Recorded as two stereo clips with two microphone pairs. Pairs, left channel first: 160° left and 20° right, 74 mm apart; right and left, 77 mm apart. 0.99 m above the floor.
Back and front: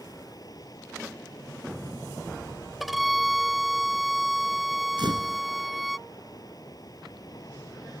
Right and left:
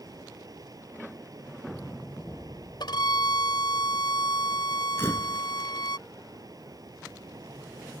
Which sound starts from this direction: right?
A violin, at 2.8 s.